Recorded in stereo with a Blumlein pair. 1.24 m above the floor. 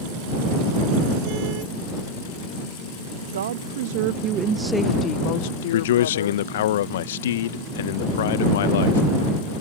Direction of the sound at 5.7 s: 55° left.